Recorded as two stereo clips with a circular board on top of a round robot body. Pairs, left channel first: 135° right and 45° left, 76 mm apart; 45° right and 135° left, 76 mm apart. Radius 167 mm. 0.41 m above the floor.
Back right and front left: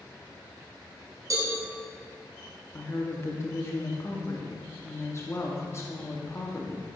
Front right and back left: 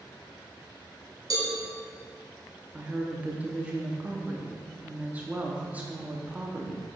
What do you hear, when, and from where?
1.3 s a cowbell: 95° left, 1.9 m
2.7 s a woman speaking: 165° right, 1.2 m